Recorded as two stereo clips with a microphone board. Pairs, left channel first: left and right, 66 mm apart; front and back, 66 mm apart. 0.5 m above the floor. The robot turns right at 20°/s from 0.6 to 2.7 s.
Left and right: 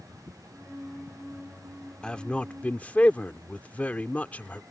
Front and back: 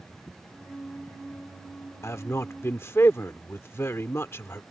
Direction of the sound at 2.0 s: 15° left.